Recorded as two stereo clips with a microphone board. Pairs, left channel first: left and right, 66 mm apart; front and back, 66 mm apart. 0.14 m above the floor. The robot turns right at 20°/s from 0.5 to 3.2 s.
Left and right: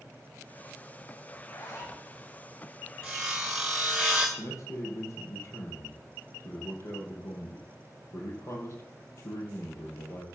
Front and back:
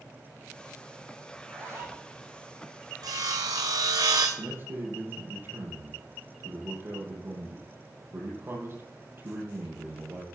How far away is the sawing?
About 1.8 m.